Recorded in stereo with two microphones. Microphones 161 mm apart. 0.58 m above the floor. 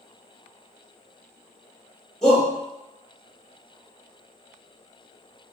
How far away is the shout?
About 1.1 m.